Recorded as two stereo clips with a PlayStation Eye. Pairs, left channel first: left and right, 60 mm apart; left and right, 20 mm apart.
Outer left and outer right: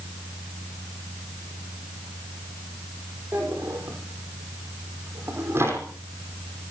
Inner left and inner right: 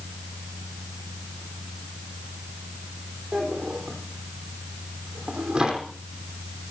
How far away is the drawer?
About 5 m.